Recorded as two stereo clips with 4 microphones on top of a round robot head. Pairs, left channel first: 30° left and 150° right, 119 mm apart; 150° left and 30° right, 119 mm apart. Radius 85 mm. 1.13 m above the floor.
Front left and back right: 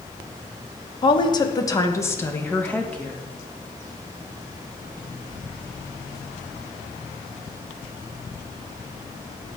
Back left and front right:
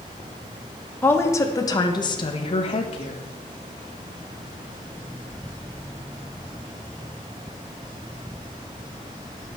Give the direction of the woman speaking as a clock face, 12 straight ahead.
9 o'clock.